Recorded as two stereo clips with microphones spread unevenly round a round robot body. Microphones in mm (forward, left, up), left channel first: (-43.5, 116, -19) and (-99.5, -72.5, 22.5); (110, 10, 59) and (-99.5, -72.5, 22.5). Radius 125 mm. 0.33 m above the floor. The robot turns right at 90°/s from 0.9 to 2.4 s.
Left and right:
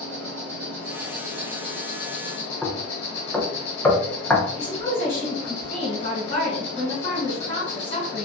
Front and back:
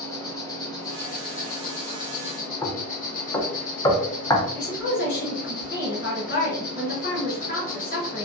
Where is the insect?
55° right, 1.1 m; by 8.2 s 80° left, 1.1 m.